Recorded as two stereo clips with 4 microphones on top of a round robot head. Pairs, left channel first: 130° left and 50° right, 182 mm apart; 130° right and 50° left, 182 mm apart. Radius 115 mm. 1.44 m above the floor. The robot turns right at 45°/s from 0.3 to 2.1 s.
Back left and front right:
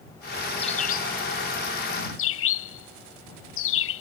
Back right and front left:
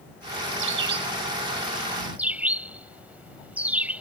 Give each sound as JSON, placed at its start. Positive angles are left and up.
{"t": 0.6, "sound": "a bird", "azimuth_deg": 65}